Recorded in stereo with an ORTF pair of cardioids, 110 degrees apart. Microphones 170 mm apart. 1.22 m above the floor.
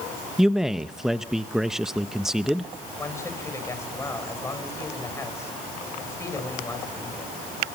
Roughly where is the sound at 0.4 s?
Ahead.